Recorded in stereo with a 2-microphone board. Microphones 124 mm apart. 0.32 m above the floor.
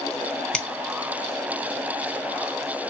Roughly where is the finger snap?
Centre.